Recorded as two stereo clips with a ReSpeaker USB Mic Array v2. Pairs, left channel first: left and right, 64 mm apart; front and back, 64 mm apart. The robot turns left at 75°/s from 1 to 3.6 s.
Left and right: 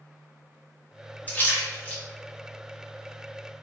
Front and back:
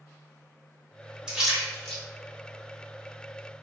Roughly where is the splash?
Behind left.